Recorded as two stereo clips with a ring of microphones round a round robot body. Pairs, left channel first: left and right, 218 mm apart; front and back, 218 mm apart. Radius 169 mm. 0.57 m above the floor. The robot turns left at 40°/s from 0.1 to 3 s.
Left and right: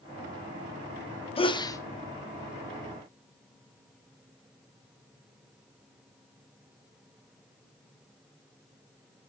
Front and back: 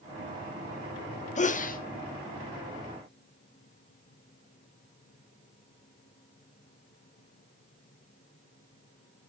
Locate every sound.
1.4 s a sneeze: 35° left, 0.8 m; by 1.8 s 20° left, 0.8 m